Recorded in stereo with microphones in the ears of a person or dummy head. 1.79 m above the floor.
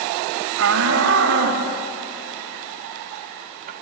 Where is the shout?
75° right (ahead or behind), 3 m; by 3.7 s 50° right (ahead or behind), 3 m.